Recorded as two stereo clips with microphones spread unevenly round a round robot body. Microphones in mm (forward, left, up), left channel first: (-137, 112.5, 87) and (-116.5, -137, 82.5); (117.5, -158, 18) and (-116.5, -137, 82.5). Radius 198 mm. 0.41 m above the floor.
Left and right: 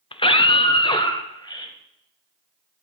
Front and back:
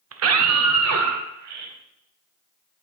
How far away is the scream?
About 1.2 m.